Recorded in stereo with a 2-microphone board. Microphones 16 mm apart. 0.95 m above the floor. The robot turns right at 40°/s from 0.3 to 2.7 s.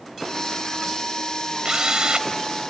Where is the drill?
60° right (ahead or behind); by 2.3 s 80° right.